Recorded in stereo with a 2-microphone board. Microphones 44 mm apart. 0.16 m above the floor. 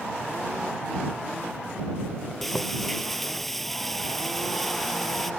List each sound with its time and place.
2.4 s frying: 5° left (ahead or behind)